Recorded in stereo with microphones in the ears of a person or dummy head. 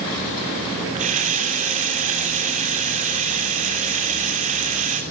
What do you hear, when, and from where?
0.9 s a running tap: 40° right (ahead or behind), 3 m